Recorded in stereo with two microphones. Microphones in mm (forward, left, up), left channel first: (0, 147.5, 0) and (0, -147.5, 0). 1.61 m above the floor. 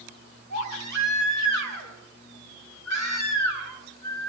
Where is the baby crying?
75° right (ahead or behind), 8.5 m.